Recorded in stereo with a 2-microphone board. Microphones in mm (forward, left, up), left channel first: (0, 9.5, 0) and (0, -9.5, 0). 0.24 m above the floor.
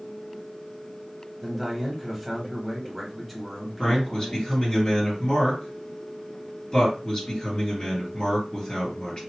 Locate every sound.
1.4 s a man speaking: centre (ahead or behind), 1.1 m
3.8 s a man speaking: 45° left (ahead or behind), 2.5 m